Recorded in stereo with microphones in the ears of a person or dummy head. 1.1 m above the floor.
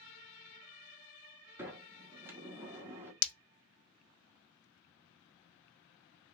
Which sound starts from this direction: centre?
A sliding door, at 1.6 s.